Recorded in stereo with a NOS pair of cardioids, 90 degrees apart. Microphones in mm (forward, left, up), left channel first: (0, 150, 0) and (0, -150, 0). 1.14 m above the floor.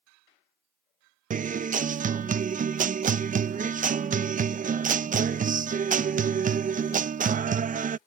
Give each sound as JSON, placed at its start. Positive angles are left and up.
{"t": 1.3, "sound": "a guitar", "azimuth_deg": -25}